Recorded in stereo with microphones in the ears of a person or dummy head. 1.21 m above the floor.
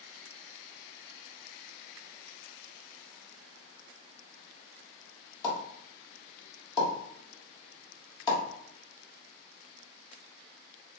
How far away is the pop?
About 1.2 m.